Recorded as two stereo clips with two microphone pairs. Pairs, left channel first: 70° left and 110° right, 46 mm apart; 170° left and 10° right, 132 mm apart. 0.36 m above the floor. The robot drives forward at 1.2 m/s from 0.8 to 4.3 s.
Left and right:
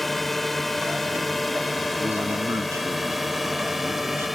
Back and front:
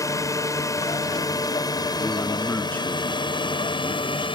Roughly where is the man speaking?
Right.